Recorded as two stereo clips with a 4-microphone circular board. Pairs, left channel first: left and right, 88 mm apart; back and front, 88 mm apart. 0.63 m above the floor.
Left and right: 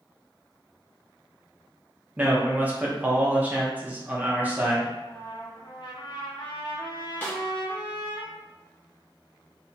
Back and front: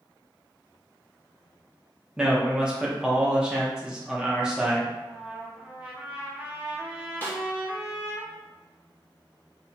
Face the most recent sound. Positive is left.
turn(degrees=135)